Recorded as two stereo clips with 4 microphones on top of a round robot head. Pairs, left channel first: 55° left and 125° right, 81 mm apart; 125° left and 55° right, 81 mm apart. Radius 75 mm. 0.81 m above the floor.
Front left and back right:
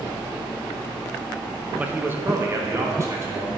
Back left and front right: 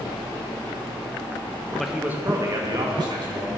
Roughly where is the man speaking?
Behind right.